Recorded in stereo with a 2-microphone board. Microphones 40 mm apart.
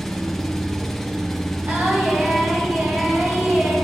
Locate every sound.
0.0 s an engine running: 5° left (ahead or behind), 0.7 m
1.7 s singing: 55° right (ahead or behind), 2.5 m